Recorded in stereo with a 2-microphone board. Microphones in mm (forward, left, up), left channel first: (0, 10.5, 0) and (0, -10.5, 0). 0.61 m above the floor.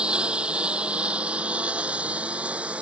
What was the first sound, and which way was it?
A lawn mower, 55° right (ahead or behind).